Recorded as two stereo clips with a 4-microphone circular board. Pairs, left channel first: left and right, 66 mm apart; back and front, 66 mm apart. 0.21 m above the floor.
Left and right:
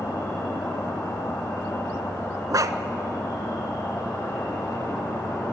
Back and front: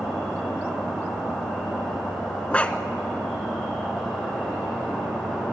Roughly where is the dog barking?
Right.